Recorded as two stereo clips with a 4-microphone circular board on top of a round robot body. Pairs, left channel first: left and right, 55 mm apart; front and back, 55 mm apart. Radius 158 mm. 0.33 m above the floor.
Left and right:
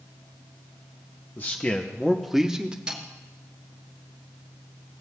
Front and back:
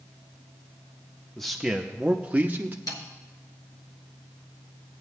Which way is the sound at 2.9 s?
15° right.